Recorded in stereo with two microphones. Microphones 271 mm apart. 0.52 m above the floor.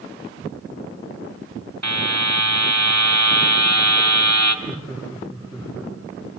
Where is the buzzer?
80° right, 2 m.